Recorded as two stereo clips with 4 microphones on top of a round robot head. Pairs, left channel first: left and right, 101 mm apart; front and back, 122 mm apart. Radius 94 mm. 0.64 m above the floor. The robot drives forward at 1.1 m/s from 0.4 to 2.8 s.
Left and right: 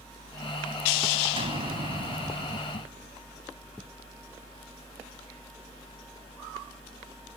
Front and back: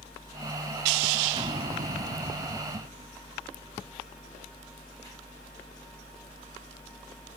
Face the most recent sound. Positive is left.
turn(degrees=-140)